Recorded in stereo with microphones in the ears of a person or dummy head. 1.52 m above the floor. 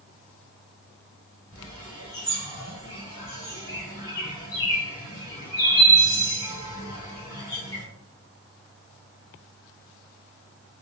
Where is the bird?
25° left (ahead or behind), 1.3 m.